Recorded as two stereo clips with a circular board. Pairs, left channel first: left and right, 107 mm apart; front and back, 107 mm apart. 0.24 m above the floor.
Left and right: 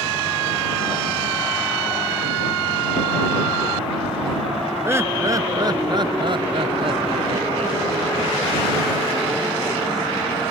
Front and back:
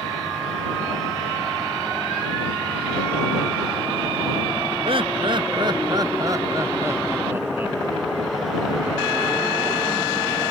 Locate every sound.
4.8 s laughter: 155° right; by 7.8 s 105° right